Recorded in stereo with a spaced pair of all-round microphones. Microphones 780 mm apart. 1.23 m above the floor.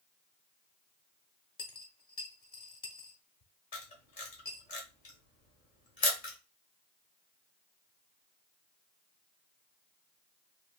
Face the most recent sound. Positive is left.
turn(degrees=65)  # may be behind; listen again after turning